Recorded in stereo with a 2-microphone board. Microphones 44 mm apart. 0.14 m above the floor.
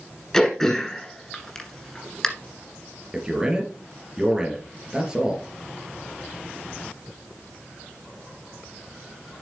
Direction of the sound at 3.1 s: 20° right (ahead or behind).